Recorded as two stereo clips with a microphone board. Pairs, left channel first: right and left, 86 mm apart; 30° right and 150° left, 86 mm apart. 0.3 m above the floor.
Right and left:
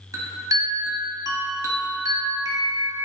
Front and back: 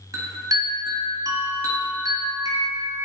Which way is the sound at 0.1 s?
120° left.